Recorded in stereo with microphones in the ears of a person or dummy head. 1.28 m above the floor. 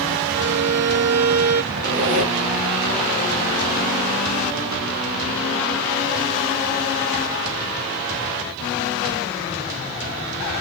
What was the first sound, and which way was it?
A violin, 65° right (ahead or behind).